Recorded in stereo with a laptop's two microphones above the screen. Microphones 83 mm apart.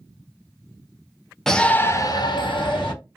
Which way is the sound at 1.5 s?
5° left (ahead or behind).